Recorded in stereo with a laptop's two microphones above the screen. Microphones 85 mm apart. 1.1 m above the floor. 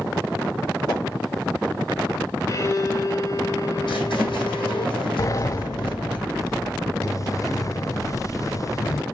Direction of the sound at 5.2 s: 40° left (ahead or behind).